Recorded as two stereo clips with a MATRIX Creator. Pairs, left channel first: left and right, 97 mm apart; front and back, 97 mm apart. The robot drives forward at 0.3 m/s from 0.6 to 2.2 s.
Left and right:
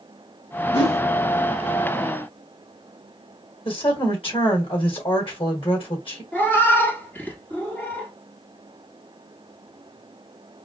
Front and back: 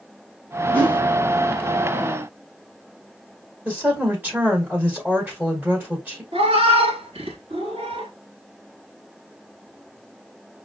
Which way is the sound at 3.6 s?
110° left.